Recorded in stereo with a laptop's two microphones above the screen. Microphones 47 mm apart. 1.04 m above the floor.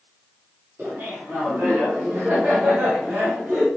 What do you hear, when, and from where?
0.8 s laughter: 50° right (ahead or behind), 2 m